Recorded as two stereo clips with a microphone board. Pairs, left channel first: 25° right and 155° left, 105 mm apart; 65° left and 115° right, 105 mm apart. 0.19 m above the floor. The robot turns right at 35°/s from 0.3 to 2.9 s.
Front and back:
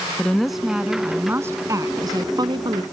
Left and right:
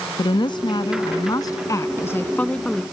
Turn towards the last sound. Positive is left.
turn(degrees=155)